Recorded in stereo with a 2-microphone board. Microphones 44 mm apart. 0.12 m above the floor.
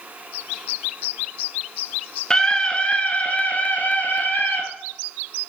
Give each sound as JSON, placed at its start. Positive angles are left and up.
{"t": 2.3, "sound": "a scream", "side_deg": 15, "distance_m": 1.1}